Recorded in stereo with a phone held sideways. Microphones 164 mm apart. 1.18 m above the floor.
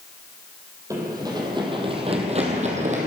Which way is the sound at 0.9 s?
20° right (ahead or behind).